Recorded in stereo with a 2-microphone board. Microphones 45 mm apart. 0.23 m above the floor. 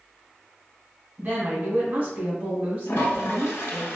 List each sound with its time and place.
1.2 s a woman speaking: 35° right (ahead or behind), 1.8 m
2.9 s a toilet flushing: 75° left (ahead or behind), 0.8 m